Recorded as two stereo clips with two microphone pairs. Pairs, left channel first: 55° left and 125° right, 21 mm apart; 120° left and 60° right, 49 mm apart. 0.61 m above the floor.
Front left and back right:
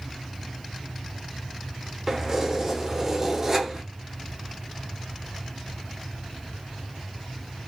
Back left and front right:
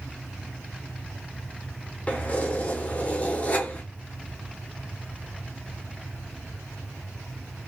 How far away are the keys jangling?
About 0.5 m.